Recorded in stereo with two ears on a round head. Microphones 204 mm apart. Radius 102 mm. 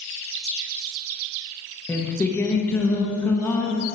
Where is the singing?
10° left (ahead or behind), 1.0 m.